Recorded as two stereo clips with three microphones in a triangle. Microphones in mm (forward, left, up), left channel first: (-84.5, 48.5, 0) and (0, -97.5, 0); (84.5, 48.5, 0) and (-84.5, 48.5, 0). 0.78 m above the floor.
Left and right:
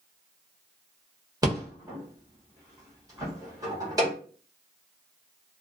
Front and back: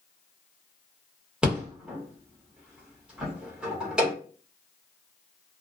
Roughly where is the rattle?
Right.